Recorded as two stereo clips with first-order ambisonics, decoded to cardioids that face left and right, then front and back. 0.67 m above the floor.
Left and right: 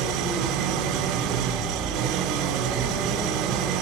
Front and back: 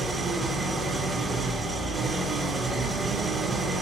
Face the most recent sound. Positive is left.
turn(degrees=-105)